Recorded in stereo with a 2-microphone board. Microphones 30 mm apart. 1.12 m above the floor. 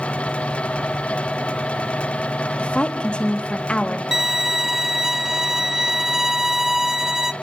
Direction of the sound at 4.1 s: 15° right (ahead or behind).